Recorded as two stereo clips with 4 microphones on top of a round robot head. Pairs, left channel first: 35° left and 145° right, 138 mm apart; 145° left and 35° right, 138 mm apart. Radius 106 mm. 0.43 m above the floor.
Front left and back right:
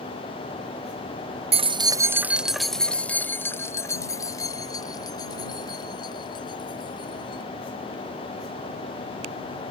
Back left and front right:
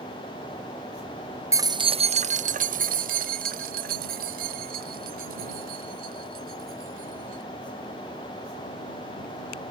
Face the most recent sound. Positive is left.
turn(degrees=-20)